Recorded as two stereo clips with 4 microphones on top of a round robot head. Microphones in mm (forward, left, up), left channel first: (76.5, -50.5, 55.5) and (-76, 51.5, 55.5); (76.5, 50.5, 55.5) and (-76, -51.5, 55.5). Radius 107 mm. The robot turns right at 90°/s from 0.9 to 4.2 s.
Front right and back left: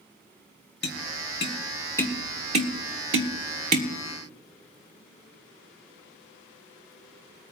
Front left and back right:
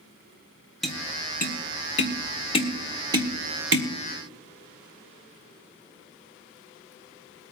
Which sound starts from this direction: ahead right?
Tapping, at 0.8 s.